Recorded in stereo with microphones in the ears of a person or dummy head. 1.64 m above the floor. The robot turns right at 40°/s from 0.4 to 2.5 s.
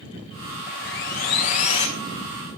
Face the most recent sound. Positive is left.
turn(degrees=160)